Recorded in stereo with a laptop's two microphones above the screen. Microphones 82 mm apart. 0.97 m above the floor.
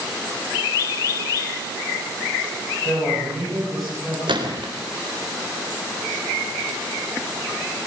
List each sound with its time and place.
2.9 s a man speaking: centre (ahead or behind), 7 m
4.3 s a gunshot: 85° right, 3.5 m